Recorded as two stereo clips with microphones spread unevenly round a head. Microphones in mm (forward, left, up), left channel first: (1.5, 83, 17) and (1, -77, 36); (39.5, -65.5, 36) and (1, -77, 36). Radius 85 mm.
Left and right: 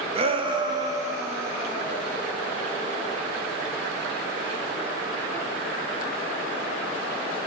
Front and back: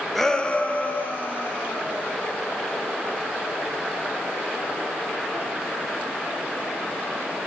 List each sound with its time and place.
0.1 s a shout: 65° right, 0.9 m; by 2.1 s 10° right, 3 m